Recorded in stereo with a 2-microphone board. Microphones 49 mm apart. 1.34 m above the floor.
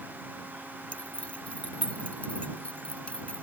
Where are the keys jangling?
25° left (ahead or behind).